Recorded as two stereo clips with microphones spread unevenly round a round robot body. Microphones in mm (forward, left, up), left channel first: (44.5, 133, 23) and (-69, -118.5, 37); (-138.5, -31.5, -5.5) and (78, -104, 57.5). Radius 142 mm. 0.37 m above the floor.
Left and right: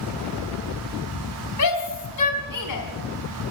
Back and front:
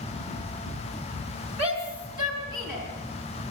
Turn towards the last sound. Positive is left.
turn(degrees=65)